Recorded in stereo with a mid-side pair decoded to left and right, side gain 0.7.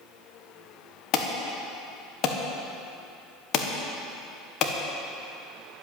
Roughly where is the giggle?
I don't hear a giggle.